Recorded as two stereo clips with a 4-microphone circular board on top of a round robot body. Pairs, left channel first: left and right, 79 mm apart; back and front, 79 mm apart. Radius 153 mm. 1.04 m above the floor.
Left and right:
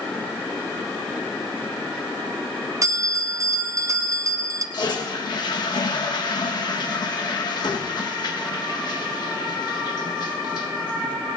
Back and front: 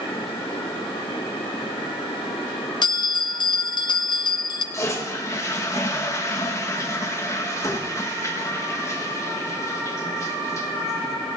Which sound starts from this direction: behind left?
A toilet flushing, at 4.7 s.